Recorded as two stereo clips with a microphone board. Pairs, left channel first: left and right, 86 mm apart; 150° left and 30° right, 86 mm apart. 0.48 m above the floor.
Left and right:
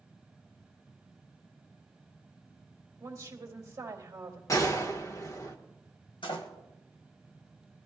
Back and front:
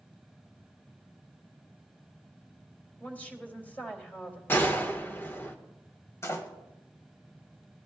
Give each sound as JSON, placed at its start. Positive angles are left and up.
{"t": 3.0, "sound": "a woman speaking", "azimuth_deg": -140, "distance_m": 2.5}
{"t": 4.5, "sound": "a gunshot", "azimuth_deg": 100, "distance_m": 1.2}
{"t": 6.2, "sound": "a door slam", "azimuth_deg": 95, "distance_m": 1.8}